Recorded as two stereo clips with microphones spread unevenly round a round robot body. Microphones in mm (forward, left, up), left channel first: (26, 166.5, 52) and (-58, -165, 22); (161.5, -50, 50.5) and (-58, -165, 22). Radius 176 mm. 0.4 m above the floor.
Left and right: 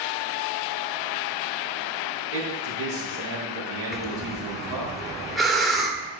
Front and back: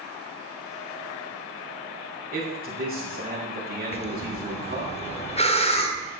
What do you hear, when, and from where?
2.3 s a man speaking: 100° right, 6.5 m
3.9 s breathing: 25° right, 1.3 m